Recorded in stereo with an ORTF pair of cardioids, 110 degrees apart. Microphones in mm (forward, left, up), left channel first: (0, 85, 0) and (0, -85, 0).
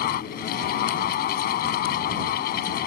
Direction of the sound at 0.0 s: 65° left.